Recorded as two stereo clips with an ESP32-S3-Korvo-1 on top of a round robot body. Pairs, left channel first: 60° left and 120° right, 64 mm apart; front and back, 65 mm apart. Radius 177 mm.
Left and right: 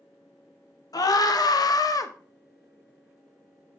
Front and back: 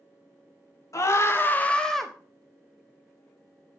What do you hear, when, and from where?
0.9 s a scream: 40° left, 1.5 m; by 2.1 s 95° left, 1.1 m